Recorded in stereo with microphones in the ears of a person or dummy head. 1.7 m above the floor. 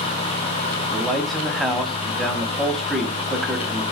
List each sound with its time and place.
0.9 s a man speaking: centre (ahead or behind), 0.5 m